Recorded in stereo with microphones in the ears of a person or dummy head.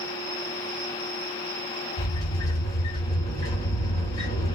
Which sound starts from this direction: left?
A sliding door, at 2.0 s.